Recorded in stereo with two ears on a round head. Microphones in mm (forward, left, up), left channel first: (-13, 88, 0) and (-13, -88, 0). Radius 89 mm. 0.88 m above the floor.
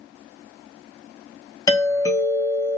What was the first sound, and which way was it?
A doorbell, 15° left (ahead or behind).